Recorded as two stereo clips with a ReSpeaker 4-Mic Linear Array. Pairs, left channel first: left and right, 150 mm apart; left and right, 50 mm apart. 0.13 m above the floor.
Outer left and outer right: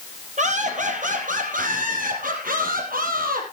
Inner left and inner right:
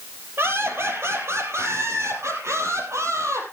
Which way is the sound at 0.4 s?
55° right (ahead or behind).